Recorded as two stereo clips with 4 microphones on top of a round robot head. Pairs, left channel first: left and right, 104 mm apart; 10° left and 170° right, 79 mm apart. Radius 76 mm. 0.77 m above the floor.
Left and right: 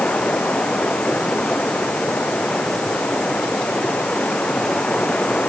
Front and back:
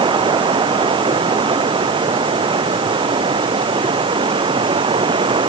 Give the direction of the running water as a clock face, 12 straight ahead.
6 o'clock.